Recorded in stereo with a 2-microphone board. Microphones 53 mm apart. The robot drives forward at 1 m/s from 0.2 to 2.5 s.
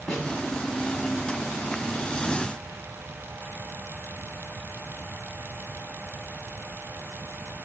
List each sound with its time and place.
0.1 s a snare drum: 5° left (ahead or behind), 2 m